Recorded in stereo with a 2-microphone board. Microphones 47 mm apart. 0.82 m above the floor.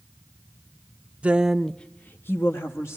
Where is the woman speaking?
30° right (ahead or behind), 0.6 m; by 3.0 s 65° left (ahead or behind), 1.2 m.